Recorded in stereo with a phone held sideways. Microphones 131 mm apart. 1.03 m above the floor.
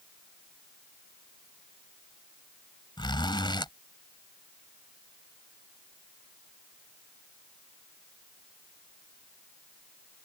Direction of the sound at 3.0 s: 35° left (ahead or behind).